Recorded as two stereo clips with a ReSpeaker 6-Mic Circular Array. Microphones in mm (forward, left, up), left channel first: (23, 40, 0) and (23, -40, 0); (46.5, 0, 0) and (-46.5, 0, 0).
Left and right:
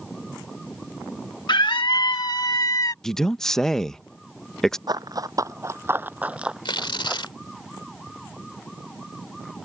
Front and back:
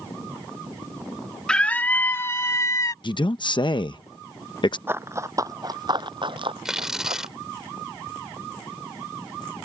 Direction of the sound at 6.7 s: 95° left.